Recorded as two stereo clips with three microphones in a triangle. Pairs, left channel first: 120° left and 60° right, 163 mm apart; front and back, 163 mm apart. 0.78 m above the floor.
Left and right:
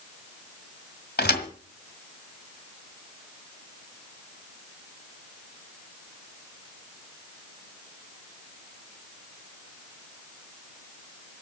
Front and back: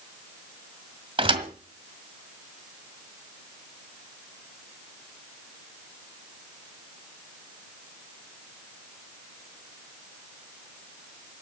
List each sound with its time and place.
1.2 s a thud: 120° left, 1.7 m